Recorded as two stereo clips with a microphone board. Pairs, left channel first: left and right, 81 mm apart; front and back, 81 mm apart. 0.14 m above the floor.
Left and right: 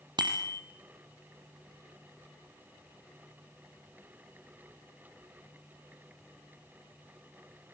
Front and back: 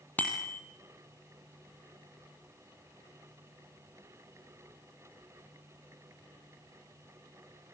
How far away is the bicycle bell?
About 3 m.